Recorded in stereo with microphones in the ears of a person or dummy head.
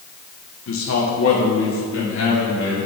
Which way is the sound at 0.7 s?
60° left (ahead or behind).